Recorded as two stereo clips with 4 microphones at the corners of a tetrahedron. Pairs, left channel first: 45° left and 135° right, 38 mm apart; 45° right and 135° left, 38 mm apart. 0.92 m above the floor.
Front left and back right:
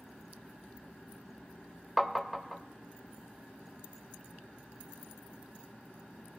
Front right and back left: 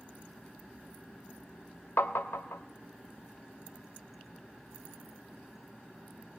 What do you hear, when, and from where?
2.0 s tapping: 45° right, 0.7 m